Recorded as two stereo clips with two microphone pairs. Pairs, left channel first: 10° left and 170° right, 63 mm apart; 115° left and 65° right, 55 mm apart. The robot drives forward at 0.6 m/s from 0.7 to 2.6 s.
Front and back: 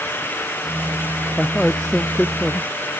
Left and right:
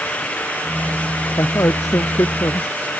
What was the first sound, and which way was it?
A man speaking, 90° left.